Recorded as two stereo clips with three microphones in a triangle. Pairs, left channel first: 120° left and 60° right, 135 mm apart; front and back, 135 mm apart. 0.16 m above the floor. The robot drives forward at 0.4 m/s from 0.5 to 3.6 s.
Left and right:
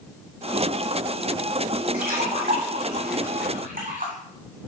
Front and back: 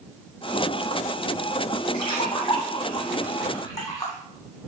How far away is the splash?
About 3 m.